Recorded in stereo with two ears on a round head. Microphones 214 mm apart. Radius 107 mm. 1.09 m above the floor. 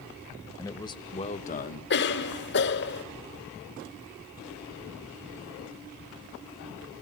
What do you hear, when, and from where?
0.6 s a man speaking: 15° left (ahead or behind), 1.4 m; by 1.8 s 40° left (ahead or behind), 1.2 m
1.9 s a cough: 50° left (ahead or behind), 1.6 m